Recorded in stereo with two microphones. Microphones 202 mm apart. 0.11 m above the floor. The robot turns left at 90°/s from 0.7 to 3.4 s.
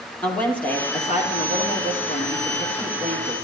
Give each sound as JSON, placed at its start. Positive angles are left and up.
{"t": 0.2, "sound": "a woman speaking", "azimuth_deg": 170, "distance_m": 3.0}